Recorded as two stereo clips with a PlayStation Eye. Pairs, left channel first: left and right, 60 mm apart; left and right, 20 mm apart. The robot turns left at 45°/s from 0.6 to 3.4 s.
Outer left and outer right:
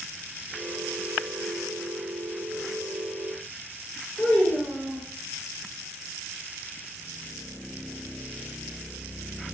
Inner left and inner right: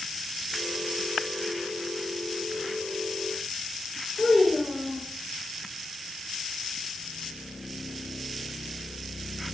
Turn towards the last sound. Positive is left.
turn(degrees=5)  # may be behind; listen again after turning